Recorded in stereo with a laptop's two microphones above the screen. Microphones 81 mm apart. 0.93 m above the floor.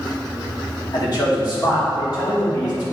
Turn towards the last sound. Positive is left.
turn(degrees=50)  # may be behind; listen again after turning